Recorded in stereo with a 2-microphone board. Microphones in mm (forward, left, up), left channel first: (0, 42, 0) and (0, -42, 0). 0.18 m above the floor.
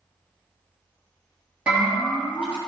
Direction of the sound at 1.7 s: 15° right (ahead or behind).